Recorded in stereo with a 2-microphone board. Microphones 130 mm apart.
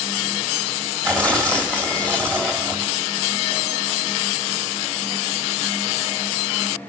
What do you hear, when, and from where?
1.0 s tearing paper: 10° left (ahead or behind), 1.4 m